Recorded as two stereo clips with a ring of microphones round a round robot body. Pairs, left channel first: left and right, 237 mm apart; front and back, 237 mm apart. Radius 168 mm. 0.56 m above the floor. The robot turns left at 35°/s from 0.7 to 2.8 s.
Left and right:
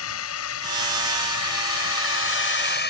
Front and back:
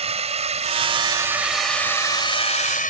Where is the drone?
120° left; by 2.9 s 50° left.